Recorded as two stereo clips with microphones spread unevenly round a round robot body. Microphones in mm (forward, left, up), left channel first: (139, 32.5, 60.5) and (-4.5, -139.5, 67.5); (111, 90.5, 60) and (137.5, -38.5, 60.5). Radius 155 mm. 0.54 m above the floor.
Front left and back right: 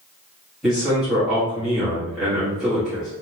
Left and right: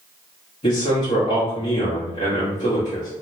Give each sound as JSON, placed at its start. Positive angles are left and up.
{"t": 0.6, "sound": "a man speaking", "azimuth_deg": 140, "distance_m": 1.7}